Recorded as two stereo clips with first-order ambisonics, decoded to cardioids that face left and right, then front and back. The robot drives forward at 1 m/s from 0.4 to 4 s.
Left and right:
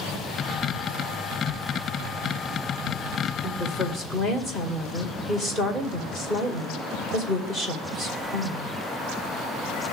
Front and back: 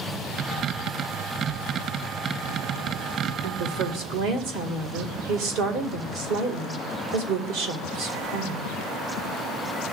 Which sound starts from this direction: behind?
A woman speaking, at 3.4 s.